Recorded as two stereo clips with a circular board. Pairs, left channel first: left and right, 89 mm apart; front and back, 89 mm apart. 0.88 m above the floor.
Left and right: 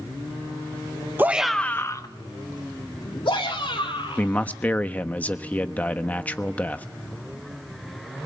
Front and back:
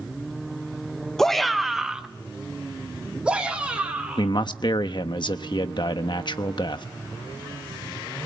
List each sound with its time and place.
1.2 s a shout: 75° right, 0.8 m; by 4.3 s 100° left, 3.5 m
4.2 s a man speaking: 20° left, 1.0 m